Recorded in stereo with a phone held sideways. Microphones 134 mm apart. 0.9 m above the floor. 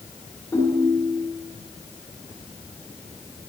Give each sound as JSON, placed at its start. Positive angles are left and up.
{"t": 0.5, "sound": "a ringtone", "side_deg": 25, "distance_m": 1.8}